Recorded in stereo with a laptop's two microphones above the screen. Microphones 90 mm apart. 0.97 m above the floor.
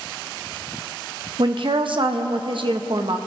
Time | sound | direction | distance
1.4 | a woman speaking | 65° right (ahead or behind) | 0.8 m